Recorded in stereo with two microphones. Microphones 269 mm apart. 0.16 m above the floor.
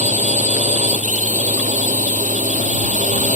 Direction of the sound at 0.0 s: 25° right (ahead or behind).